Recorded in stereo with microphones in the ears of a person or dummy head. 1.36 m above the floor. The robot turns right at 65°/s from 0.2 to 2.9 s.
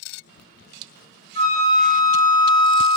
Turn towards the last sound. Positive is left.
turn(degrees=-105)